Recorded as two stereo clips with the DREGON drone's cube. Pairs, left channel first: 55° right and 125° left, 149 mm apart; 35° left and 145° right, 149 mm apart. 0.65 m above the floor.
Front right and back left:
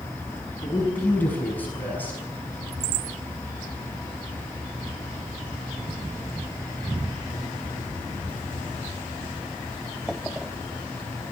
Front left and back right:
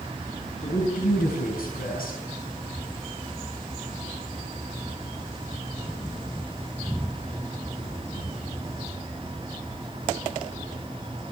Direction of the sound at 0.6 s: 25° left.